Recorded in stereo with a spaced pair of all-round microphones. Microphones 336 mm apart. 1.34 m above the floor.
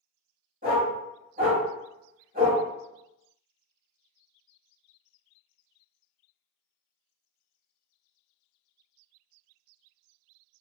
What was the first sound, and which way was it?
A dog barking, 25° right (ahead or behind).